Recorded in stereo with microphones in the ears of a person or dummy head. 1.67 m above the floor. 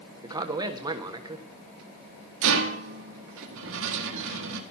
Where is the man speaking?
15° right (ahead or behind), 1.4 m.